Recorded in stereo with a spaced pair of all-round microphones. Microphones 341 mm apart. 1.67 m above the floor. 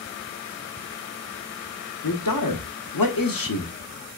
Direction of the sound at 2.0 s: 75° left (ahead or behind).